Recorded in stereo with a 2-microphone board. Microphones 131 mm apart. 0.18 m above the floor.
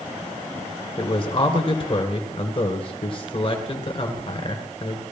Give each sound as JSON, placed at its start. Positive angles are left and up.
{"t": 1.0, "sound": "a man speaking", "side_deg": 40, "distance_m": 1.9}